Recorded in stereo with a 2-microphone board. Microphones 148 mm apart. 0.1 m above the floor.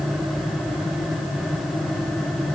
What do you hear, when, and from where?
Only background noise.